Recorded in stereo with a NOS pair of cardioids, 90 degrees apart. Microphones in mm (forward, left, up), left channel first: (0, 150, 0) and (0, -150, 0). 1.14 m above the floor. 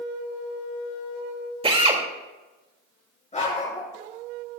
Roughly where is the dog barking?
Ahead left.